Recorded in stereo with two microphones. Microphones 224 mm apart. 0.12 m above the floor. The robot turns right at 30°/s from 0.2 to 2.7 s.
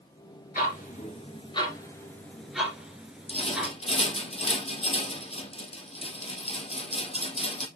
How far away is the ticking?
About 2 m.